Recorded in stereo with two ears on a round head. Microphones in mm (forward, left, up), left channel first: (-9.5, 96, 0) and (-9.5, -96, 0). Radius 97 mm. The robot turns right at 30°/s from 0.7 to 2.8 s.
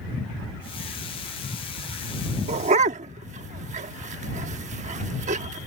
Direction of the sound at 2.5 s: 30° right (ahead or behind).